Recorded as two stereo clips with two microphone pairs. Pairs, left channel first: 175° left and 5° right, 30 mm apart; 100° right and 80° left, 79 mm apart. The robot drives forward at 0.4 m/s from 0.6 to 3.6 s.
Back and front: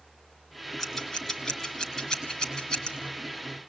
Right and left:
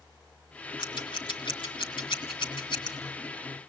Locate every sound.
0.8 s scissors: 100° right, 2.5 m; by 2.9 s 120° right, 2.5 m